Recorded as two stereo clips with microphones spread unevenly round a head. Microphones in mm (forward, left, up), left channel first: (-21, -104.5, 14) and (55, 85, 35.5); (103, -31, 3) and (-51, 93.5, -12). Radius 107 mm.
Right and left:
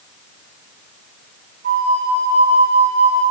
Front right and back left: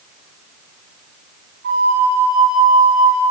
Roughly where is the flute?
Left.